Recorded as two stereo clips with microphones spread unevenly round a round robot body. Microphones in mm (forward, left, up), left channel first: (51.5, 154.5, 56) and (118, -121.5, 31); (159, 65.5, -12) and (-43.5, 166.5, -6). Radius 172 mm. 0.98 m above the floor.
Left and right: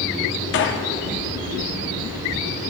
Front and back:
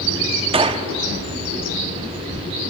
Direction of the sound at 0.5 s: 100° left.